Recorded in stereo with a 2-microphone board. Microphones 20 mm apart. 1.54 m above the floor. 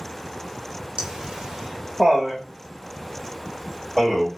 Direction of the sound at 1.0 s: 75° right (ahead or behind).